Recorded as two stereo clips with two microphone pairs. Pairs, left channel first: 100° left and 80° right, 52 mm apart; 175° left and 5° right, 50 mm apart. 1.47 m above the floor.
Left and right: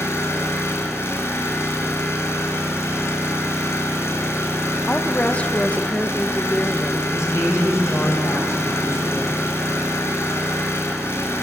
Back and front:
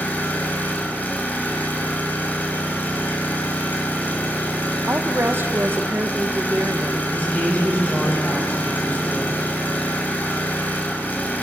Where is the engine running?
125° left, 3.5 m.